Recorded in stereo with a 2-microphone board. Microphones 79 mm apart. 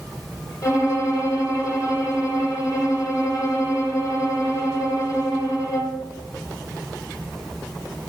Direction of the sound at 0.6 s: 45° left (ahead or behind).